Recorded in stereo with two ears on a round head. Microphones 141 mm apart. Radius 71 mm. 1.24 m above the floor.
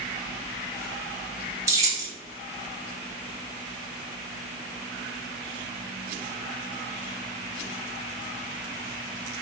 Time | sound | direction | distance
1.7 | keys jangling | 20° right (ahead or behind) | 0.7 m